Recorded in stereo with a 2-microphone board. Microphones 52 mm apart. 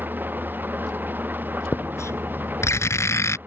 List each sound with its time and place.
0.0 s an engine running: 35° right (ahead or behind)
1.7 s writing: 65° left (ahead or behind)